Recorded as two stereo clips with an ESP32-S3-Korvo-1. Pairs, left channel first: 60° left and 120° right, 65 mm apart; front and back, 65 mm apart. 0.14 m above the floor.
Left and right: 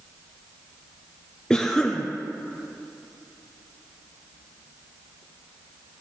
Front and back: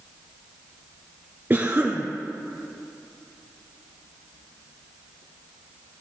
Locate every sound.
1.5 s a cough: 135° left, 2 m